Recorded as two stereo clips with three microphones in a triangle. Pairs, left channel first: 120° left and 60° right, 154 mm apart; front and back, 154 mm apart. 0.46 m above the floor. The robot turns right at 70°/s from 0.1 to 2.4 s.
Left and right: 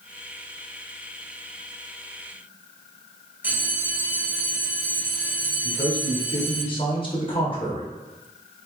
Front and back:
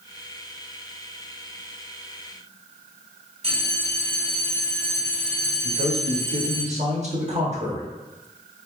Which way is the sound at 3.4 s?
135° right.